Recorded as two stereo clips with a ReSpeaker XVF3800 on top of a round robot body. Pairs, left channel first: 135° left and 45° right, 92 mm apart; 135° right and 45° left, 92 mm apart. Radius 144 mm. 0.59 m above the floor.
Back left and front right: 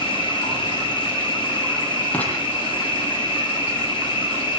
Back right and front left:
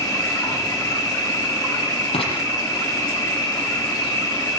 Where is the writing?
150° right, 6.5 m.